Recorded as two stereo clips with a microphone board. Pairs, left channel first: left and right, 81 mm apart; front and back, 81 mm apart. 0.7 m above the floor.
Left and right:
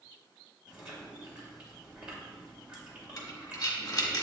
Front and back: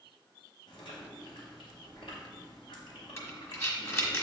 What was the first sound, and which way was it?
Chewing, 15° right.